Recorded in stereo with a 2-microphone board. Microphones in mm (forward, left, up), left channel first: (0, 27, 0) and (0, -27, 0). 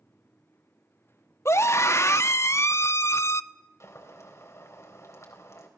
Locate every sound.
1.4 s a scream: 55° left (ahead or behind), 0.9 m
3.8 s boiling: 60° left (ahead or behind), 3.5 m